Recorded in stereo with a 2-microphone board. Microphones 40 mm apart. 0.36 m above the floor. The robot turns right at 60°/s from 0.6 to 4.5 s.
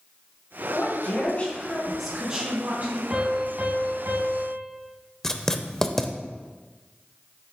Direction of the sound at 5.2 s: 10° left (ahead or behind).